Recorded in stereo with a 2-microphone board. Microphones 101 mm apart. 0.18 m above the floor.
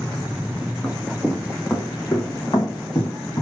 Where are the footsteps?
Centre (ahead or behind), 1.1 m; by 3.4 s 50° left (ahead or behind), 1.9 m.